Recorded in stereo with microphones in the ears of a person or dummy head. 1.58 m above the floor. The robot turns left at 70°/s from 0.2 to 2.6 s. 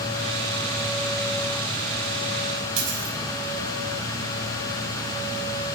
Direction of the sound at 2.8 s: 75° right (ahead or behind).